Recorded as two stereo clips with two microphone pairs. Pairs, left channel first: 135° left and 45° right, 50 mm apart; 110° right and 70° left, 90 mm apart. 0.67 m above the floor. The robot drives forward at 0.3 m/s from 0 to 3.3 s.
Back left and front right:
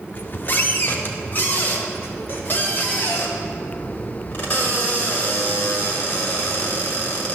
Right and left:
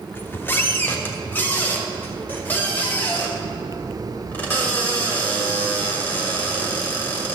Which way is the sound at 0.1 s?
Straight behind.